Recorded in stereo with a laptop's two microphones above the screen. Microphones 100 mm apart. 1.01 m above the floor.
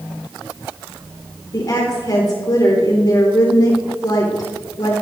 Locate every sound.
1.5 s a woman speaking: 40° left (ahead or behind), 3 m